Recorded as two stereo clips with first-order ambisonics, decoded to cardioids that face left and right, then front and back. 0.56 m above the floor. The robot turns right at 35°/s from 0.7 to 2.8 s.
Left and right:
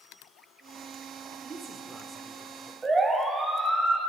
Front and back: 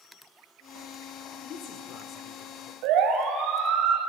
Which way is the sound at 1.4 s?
30° right.